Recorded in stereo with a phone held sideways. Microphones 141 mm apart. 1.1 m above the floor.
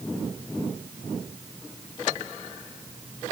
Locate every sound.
Only background noise.